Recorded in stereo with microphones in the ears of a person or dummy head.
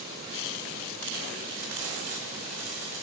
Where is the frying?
80° right, 1.6 m.